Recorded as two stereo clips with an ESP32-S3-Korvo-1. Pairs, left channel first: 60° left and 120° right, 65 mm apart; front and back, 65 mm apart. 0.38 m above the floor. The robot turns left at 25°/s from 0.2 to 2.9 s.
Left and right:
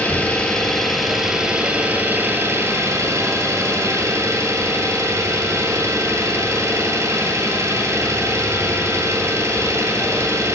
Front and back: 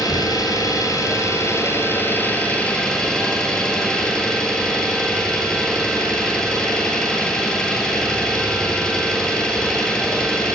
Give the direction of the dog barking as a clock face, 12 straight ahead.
No dog barking in this recording.